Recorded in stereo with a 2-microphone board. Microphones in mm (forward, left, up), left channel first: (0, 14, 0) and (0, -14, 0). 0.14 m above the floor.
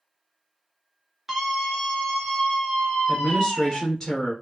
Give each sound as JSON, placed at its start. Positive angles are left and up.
{"t": 1.3, "sound": "a scream", "side_deg": -10, "distance_m": 1.5}
{"t": 3.1, "sound": "a woman speaking", "side_deg": 15, "distance_m": 1.6}